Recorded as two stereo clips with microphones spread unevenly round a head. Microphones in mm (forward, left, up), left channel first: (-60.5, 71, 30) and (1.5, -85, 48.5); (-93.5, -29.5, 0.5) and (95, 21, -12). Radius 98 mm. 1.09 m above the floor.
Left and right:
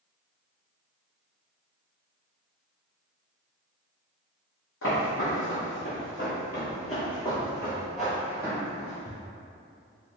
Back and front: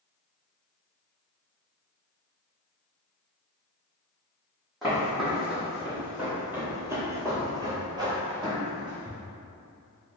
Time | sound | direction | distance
4.8 | footsteps | 105° left | 2.0 m